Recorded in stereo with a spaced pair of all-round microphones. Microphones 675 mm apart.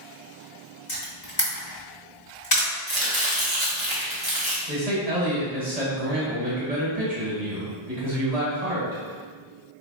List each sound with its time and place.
0.9 s a camera shutter: 60° left (ahead or behind), 1.9 m
2.9 s chopping: 35° right (ahead or behind), 1.3 m
4.7 s a man speaking: 65° right (ahead or behind), 1.8 m